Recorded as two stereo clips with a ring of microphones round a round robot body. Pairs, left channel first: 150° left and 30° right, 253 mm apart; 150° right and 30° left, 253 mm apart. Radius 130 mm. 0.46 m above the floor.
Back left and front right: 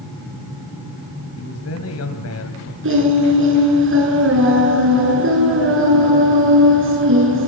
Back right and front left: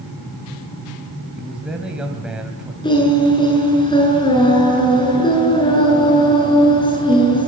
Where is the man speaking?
115° left, 2.5 m.